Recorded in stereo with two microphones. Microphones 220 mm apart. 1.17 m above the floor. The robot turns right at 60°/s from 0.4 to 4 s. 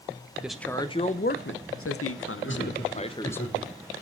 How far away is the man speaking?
About 0.5 m.